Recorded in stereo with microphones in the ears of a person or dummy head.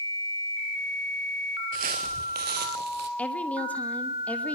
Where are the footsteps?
40° right (ahead or behind), 1.5 m; by 3.1 s 55° right (ahead or behind), 2.5 m.